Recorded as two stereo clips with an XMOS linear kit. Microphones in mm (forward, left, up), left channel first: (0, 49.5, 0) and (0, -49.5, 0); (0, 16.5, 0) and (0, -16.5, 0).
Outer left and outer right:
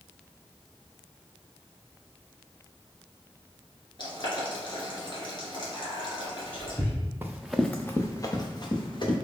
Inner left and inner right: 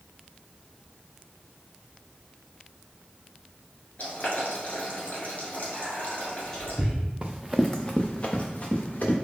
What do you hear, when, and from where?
4.0 s boiling: 55° left (ahead or behind), 1.5 m
5.7 s whispering: 15° left (ahead or behind), 1.3 m
7.2 s running footsteps: 25° right (ahead or behind), 0.6 m; by 9.2 s 50° left (ahead or behind), 1.6 m